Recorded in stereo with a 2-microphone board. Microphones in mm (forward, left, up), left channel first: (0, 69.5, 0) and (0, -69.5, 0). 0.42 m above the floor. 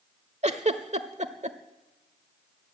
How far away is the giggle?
About 1.2 m.